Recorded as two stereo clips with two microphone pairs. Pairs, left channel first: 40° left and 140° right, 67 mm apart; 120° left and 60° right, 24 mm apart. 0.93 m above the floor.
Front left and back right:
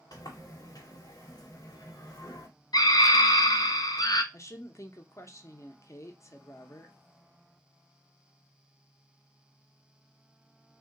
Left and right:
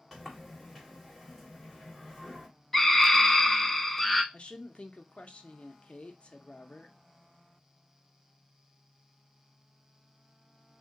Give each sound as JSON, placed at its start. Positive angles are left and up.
{"t": 0.1, "sound": "a sliding door", "azimuth_deg": 20, "distance_m": 1.2}
{"t": 2.7, "sound": "a scream", "azimuth_deg": 40, "distance_m": 0.7}
{"t": 4.3, "sound": "a woman speaking", "azimuth_deg": 80, "distance_m": 0.6}